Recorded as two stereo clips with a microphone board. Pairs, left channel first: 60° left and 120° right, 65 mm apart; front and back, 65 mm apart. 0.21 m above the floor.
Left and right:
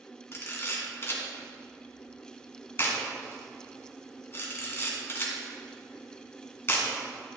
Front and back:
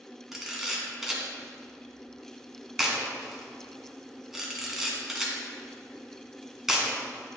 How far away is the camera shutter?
About 2.5 m.